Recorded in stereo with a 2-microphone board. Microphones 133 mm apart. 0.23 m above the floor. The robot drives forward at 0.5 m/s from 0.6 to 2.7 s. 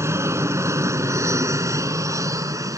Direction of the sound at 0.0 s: 20° right (ahead or behind).